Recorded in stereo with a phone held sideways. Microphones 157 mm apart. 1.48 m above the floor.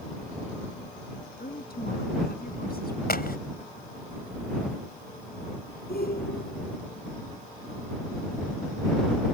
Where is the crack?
75° left (ahead or behind).